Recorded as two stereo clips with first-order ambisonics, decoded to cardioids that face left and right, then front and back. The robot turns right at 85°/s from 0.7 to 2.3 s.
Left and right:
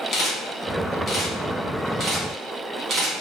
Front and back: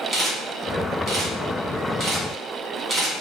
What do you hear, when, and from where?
0.1 s a camera shutter: 110° left, 0.9 m; by 3.1 s 110° right, 0.9 m